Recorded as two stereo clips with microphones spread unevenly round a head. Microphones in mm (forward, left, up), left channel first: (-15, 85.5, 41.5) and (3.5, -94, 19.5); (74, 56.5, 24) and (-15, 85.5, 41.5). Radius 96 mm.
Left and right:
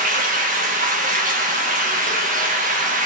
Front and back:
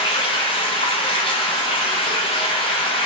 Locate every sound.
0.0 s running water: 45° right, 0.8 m